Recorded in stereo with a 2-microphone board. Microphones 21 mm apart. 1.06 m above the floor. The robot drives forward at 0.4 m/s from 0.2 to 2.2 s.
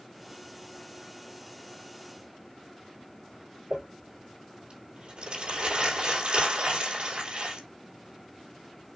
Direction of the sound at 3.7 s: 55° right (ahead or behind).